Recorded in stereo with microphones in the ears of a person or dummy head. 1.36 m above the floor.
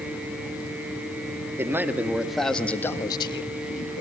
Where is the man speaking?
10° right (ahead or behind), 2 m; by 4.0 s 55° left (ahead or behind), 1.6 m.